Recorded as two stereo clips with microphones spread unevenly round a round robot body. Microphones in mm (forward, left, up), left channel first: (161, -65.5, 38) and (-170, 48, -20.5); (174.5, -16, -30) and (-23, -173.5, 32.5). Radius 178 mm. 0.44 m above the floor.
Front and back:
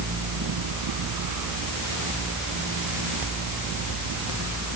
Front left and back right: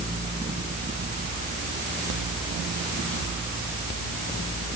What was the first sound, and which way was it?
Only background noise.